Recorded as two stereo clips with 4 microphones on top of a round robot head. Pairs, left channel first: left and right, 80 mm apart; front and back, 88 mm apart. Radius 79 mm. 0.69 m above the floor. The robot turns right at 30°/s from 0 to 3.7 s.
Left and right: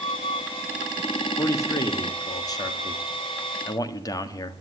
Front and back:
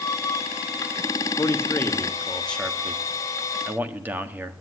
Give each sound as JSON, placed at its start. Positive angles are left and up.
{"t": 1.4, "sound": "a man speaking", "azimuth_deg": 45, "distance_m": 1.6}